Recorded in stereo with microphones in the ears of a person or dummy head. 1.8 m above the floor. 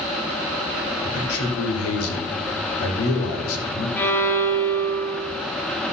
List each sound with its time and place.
1.0 s a man speaking: 85° left, 1.6 m
4.0 s a violin: 10° left (ahead or behind), 0.9 m